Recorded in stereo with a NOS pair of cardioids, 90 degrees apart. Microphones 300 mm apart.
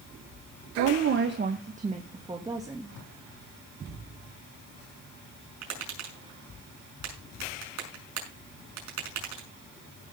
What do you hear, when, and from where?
0.8 s a woman speaking: 60° right, 1.4 m; by 3.0 s 10° right, 3 m
2.9 s tape being pulled: 65° left, 5.5 m
5.6 s tapping: 65° right, 6 m